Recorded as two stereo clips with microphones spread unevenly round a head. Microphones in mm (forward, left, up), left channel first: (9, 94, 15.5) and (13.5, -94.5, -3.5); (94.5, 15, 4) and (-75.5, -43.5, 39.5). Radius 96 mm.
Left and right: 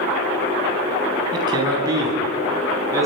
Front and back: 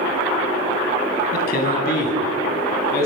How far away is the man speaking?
About 8.5 m.